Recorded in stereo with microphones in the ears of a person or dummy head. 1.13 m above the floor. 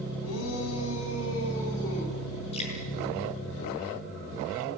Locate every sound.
0.2 s a shout: 85° left, 7.5 m; by 2.2 s 65° left (ahead or behind), 9 m
2.5 s dripping: 30° left (ahead or behind), 7.5 m